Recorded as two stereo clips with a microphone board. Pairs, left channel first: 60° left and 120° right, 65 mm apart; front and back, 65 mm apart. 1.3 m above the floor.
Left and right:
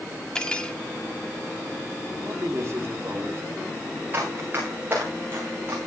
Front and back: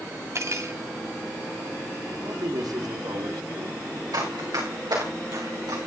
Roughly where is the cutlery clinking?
Behind left.